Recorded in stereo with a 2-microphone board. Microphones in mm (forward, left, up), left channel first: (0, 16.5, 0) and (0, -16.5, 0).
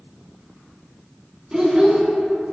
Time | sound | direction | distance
1.5 | a child speaking | 20° right (ahead or behind) | 0.7 m